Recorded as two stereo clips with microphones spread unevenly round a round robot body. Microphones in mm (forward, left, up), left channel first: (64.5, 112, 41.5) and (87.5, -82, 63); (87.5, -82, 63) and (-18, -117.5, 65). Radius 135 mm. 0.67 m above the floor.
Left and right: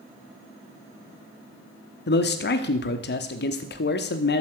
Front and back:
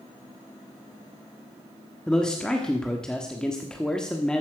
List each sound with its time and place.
2.1 s a man speaking: 100° left, 1.2 m